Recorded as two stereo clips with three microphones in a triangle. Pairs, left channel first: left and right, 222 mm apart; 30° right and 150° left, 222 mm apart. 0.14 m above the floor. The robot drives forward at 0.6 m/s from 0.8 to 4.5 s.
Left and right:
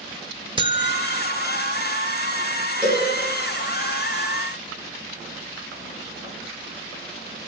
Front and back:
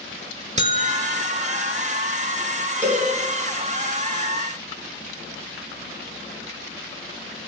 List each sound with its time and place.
0.6 s a buzzer: 150° right, 0.5 m; by 1.8 s 165° right, 1.1 m
2.8 s a cowbell: 135° right, 2 m; by 3.0 s 140° right, 2 m